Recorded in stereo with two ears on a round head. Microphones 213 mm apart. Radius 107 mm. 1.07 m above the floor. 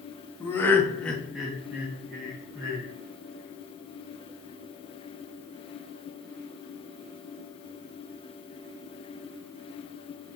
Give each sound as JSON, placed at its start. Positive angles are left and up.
{"t": 0.4, "sound": "laughter", "side_deg": 10, "distance_m": 0.7}